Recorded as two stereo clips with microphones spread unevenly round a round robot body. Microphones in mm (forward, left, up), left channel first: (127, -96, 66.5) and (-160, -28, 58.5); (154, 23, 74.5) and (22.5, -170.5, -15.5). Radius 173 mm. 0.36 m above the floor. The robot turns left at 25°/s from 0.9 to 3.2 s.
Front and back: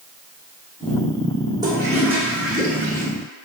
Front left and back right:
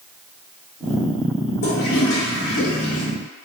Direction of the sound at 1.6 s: 100° left.